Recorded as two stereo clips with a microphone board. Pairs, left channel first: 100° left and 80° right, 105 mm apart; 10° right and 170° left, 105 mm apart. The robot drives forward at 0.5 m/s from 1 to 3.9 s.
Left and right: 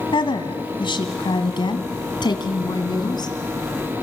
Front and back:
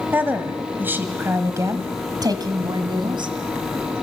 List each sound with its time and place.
0.1 s a woman speaking: 105° left, 1.7 m; by 3.4 s 140° left, 2 m